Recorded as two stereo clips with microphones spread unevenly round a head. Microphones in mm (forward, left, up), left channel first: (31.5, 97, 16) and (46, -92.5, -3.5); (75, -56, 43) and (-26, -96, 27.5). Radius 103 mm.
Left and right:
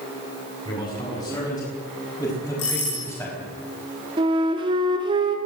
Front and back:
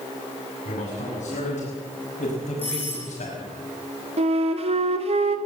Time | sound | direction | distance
0.7 | a man speaking | 25° left | 8 m
2.6 | a doorbell | 100° left | 9 m
4.2 | a flute | 150° right | 2 m